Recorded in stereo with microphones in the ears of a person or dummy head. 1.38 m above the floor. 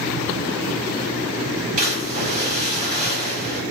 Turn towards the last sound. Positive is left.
turn(degrees=-45)  # may be behind; listen again after turning